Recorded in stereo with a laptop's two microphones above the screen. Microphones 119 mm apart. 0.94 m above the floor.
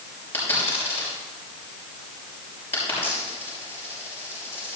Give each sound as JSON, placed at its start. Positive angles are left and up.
{"t": 0.3, "sound": "a dropped coin", "side_deg": 20, "distance_m": 5.5}